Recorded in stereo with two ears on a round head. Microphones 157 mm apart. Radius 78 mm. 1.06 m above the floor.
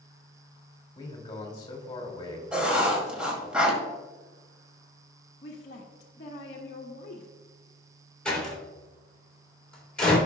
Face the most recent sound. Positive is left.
turn(degrees=5)  # may be behind; listen again after turning